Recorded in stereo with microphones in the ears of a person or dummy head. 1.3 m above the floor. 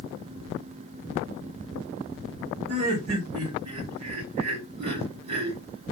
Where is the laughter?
50° right (ahead or behind), 3 m.